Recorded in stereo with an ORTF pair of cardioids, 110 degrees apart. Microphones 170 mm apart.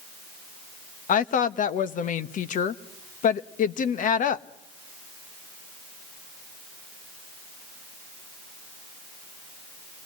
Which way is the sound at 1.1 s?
50° left.